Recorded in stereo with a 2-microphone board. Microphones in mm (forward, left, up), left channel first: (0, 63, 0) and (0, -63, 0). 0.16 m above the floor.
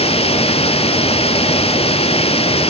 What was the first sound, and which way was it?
Running water, 50° left (ahead or behind).